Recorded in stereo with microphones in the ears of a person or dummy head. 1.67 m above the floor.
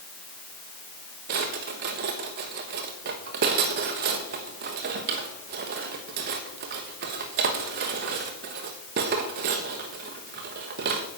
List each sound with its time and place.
1.3 s a drawer: 40° right (ahead or behind), 1.1 m